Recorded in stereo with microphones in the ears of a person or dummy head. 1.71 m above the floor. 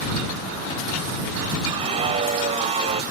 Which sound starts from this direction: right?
A scream, at 1.7 s.